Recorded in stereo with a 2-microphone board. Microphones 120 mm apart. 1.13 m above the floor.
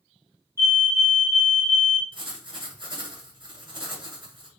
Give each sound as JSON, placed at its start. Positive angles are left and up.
{"t": 0.6, "sound": "a fire alarm", "side_deg": -25, "distance_m": 1.3}
{"t": 2.1, "sound": "writing", "side_deg": -40, "distance_m": 1.5}